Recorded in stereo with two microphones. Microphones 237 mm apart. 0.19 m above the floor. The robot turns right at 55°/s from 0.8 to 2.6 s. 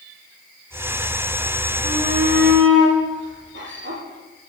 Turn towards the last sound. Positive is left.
turn(degrees=-125)